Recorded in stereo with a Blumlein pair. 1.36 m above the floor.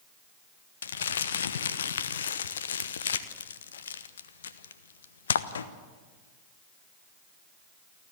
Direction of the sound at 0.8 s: 65° left.